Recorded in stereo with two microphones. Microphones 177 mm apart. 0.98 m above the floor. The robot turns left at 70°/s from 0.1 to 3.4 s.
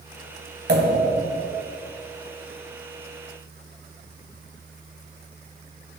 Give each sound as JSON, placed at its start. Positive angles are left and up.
{"t": 0.7, "sound": "a pop", "azimuth_deg": -75, "distance_m": 2.5}